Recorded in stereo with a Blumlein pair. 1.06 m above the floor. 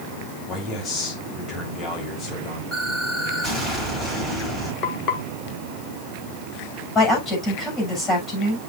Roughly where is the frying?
Ahead left.